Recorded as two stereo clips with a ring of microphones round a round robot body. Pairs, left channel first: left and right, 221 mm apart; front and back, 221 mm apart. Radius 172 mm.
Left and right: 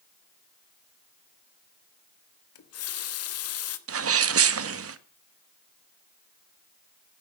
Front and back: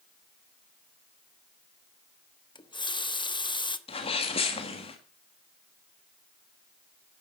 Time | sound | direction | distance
2.5 | a running tap | 70° left | 1.2 m
3.9 | a sneeze | 70° right | 1.4 m